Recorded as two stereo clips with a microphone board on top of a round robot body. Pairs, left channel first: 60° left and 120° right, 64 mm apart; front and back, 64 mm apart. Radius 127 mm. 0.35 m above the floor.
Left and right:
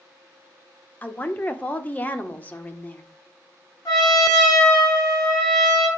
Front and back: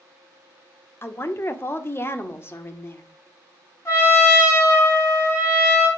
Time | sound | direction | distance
1.0 | a woman speaking | 10° left | 1.2 m
3.9 | a trumpet | 50° left | 4 m